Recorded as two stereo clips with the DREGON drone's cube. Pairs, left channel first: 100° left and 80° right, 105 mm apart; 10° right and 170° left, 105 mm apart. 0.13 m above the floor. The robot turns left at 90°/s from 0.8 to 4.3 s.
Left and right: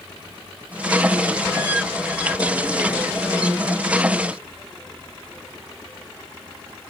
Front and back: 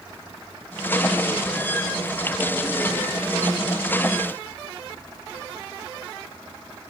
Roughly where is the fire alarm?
I don't hear a fire alarm.